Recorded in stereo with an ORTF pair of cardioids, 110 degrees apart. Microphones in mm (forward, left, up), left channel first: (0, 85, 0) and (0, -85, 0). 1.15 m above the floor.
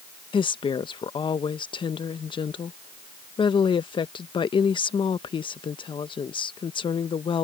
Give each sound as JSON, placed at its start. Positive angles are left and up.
{"t": 0.3, "sound": "a woman speaking", "azimuth_deg": 30}